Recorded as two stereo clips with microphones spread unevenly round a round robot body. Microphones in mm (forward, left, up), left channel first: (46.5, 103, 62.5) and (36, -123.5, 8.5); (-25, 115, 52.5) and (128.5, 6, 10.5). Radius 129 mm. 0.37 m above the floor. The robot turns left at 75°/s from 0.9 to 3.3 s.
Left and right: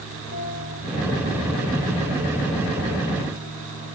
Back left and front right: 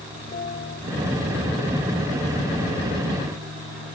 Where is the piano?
105° left.